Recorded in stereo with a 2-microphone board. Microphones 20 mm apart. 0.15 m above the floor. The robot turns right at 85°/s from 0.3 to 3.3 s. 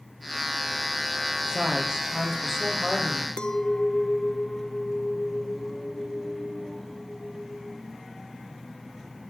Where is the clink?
55° left (ahead or behind), 1.1 m.